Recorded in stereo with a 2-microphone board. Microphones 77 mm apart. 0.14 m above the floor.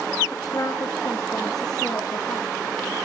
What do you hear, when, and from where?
0.3 s a woman speaking: 45° left (ahead or behind), 1.9 m; by 2.5 s 60° left (ahead or behind), 2.5 m